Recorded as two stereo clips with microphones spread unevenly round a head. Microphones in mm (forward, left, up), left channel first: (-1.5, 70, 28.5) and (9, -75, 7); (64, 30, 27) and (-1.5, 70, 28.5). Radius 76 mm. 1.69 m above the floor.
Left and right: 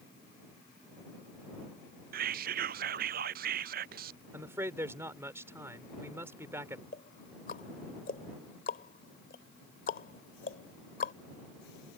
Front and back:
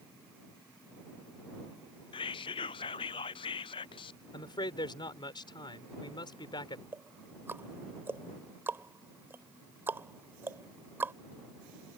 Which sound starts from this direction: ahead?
A man speaking, at 4.3 s.